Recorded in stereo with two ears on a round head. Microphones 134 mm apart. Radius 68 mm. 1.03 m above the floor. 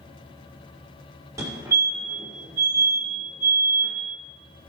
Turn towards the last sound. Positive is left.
turn(degrees=-20)  # may be behind; listen again after turning